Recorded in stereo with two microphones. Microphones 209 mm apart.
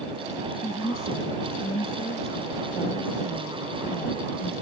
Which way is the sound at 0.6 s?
35° left (ahead or behind).